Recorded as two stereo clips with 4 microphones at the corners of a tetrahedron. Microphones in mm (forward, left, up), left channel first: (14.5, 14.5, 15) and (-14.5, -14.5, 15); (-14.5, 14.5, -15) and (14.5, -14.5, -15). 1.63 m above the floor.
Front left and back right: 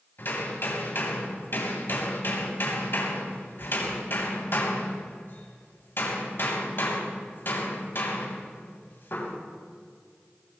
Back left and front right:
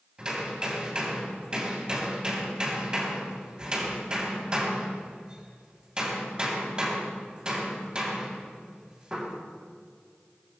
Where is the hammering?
25° left, 3.5 m.